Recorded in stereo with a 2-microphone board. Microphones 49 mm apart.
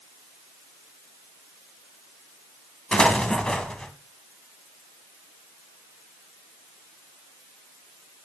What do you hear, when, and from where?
2.9 s an explosion: 20° left (ahead or behind), 1.5 m